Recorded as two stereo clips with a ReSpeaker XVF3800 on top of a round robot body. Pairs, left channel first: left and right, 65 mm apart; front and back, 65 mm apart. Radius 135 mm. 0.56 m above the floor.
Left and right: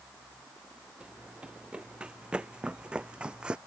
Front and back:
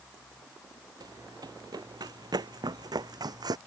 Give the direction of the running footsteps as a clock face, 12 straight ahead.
6 o'clock.